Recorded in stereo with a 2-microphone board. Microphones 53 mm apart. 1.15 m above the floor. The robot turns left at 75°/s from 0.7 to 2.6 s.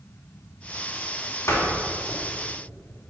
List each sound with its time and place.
1.5 s a door slam: 70° left (ahead or behind), 2.5 m; by 2.2 s 50° left (ahead or behind), 2.5 m